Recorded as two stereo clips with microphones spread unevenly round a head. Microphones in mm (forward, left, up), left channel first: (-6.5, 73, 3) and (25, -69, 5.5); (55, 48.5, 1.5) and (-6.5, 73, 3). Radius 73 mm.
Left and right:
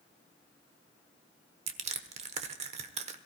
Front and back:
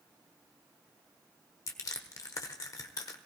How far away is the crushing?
About 1.1 m.